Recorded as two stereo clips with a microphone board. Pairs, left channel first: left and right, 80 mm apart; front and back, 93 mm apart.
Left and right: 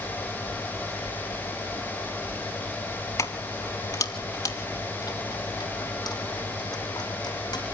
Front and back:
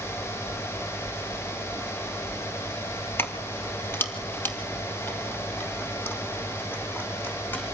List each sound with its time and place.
3.2 s keys jangling: 55° left, 1.7 m; by 7.6 s 70° left, 4.5 m